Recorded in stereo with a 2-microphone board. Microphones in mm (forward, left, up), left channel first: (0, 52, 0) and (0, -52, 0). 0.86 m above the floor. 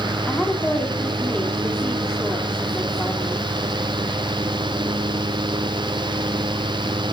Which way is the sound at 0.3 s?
10° left (ahead or behind).